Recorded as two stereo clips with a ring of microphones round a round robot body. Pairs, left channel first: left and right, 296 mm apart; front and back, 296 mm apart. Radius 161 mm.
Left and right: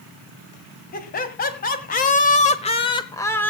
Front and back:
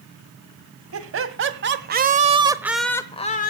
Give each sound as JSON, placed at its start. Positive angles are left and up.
{"t": 0.9, "sound": "laughter", "azimuth_deg": 150, "distance_m": 2.0}